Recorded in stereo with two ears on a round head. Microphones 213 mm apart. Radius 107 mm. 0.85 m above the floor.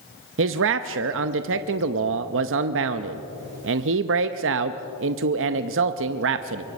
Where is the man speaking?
60° right (ahead or behind), 0.7 m.